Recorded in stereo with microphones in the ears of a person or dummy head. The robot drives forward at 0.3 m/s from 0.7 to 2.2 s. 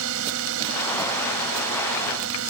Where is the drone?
75° right (ahead or behind); by 2.5 s 80° right.